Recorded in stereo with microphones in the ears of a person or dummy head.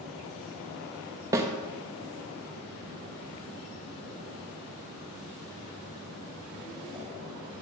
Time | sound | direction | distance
1.3 | a snare drum | 20° right (ahead or behind) | 0.9 m